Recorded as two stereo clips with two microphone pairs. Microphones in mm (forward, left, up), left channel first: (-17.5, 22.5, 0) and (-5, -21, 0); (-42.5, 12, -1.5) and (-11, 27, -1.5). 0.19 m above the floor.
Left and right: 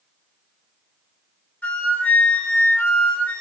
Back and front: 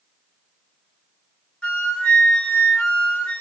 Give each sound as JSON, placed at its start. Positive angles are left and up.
{"t": 1.6, "sound": "a flute", "azimuth_deg": 150, "distance_m": 1.5}